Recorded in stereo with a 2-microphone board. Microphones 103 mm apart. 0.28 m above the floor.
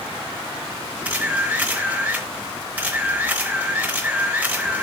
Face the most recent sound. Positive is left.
turn(degrees=-15)  # may be behind; listen again after turning